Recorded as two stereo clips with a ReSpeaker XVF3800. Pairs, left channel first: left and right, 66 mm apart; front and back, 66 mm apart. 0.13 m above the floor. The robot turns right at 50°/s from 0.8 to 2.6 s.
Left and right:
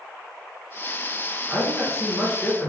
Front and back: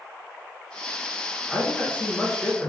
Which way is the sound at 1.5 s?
40° right.